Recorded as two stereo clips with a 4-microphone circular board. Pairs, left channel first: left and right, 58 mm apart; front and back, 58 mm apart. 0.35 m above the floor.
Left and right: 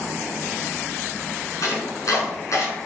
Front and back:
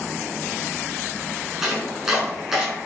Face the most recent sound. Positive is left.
turn(degrees=95)